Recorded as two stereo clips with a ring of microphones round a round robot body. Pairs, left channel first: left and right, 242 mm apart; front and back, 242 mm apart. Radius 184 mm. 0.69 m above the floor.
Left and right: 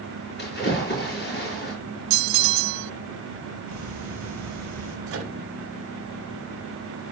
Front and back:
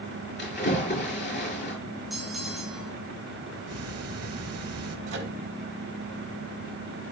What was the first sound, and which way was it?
A splash, 45° left.